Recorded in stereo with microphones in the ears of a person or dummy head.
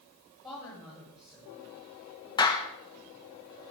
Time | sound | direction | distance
0.4 | a woman speaking | centre (ahead or behind) | 7.5 m
2.4 | a clap | 20° left (ahead or behind) | 1.1 m